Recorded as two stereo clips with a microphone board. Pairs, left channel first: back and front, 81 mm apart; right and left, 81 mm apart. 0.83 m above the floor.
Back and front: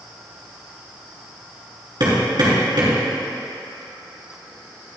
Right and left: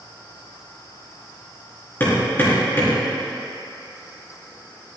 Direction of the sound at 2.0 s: 25° right.